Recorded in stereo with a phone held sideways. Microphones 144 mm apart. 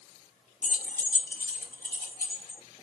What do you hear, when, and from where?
0.6 s keys jangling: 65° left (ahead or behind), 0.8 m; by 2.6 s 75° left (ahead or behind), 2 m